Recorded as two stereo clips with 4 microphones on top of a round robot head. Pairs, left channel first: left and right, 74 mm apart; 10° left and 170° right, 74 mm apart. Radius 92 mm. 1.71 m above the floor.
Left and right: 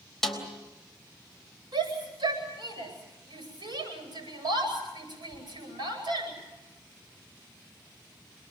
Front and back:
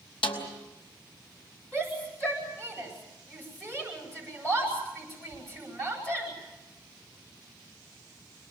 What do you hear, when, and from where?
0.2 s a snare drum: 5° left, 3.5 m
1.7 s a shout: 65° right, 9 m